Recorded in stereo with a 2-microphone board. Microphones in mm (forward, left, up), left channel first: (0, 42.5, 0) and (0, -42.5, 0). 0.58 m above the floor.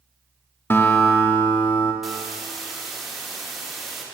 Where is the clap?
No clap in this recording.